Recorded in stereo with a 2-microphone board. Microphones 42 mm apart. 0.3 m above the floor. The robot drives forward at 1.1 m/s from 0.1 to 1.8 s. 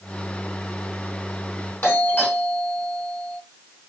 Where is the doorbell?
55° left (ahead or behind), 4 m.